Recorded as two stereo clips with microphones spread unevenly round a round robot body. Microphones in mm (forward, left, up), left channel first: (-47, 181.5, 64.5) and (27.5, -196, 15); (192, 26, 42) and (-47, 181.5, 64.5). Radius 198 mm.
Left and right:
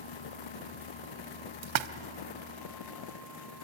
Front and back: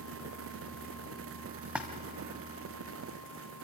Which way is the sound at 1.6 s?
125° right.